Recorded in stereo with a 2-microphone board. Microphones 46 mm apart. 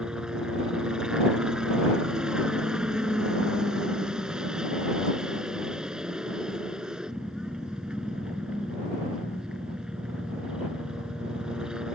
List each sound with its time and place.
0.0 s a helicopter: 15° right (ahead or behind)